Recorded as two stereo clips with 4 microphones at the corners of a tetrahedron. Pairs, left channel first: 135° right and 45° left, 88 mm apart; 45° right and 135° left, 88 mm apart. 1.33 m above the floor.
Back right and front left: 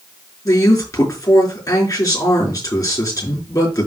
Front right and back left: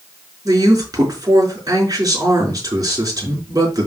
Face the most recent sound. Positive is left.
turn(degrees=180)